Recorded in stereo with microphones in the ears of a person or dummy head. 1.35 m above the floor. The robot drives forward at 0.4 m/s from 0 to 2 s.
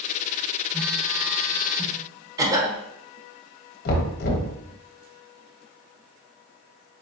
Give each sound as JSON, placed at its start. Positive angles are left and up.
{"t": 0.7, "sound": "a phone buzzing", "side_deg": 5, "distance_m": 0.6}
{"t": 2.4, "sound": "a cough", "side_deg": -20, "distance_m": 1.1}
{"t": 3.9, "sound": "knocking", "side_deg": 50, "distance_m": 1.0}